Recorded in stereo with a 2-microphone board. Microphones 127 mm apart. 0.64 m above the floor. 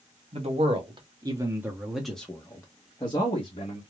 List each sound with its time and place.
0.3 s a man speaking: 50° right (ahead or behind), 1.4 m; by 3.8 s 45° left (ahead or behind), 1.5 m